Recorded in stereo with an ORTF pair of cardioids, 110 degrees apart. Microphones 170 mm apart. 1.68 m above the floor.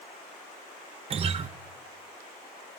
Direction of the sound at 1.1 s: 35° right.